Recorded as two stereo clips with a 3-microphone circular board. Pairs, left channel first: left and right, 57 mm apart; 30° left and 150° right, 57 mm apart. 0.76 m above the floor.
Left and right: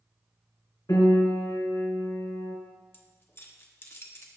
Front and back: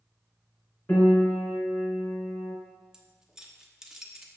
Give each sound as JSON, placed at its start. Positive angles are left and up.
{"t": 0.9, "sound": "a piano", "azimuth_deg": 95, "distance_m": 3.0}
{"t": 2.9, "sound": "keys jangling", "azimuth_deg": 130, "distance_m": 0.9}